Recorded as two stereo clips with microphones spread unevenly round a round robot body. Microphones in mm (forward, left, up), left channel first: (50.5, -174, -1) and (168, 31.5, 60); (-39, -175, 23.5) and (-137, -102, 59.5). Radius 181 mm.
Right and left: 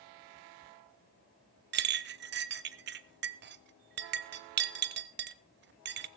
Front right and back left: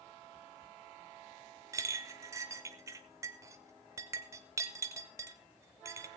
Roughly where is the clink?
Left.